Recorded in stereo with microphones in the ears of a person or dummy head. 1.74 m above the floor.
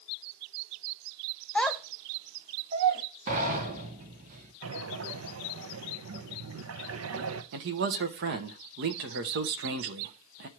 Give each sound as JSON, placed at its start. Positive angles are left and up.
{"t": 1.6, "sound": "a child speaking", "side_deg": 10, "distance_m": 1.0}
{"t": 3.3, "sound": "a sliding door", "side_deg": -40, "distance_m": 1.6}
{"t": 4.6, "sound": "breathing", "side_deg": -85, "distance_m": 0.9}
{"t": 7.5, "sound": "a man speaking", "side_deg": -55, "distance_m": 0.9}